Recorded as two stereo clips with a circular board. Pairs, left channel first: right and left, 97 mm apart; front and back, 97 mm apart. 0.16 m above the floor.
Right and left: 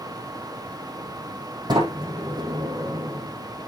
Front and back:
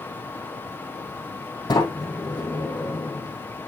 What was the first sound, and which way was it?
A sliding door, 45° left.